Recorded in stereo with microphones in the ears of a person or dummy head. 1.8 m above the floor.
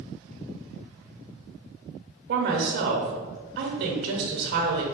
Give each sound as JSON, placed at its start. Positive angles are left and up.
{"t": 2.3, "sound": "a woman speaking", "side_deg": -60, "distance_m": 1.1}